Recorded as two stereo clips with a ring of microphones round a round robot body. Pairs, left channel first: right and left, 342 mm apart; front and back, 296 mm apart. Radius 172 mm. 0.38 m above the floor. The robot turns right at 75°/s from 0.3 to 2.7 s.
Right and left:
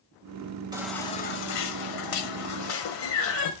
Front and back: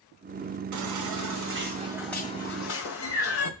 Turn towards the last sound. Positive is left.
turn(degrees=-45)